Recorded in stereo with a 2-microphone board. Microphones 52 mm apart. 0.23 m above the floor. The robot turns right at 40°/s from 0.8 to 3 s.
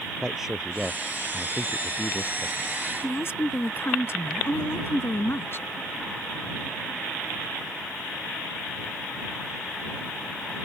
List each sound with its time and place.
0.2 s a man speaking: 10° right; by 2.8 s 70° left
3.0 s a woman speaking: 50° left (ahead or behind)